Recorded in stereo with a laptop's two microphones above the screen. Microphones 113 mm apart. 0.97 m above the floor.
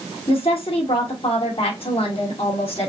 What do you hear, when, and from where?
0.3 s a woman speaking: 60° left (ahead or behind), 2.5 m